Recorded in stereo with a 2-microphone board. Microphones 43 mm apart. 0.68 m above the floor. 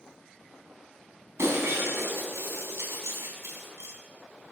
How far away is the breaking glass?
About 3.5 m.